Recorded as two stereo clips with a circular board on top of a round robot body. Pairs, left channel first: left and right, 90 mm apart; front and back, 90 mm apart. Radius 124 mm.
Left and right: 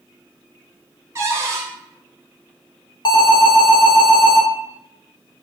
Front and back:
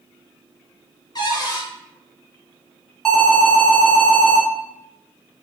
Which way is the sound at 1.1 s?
35° right.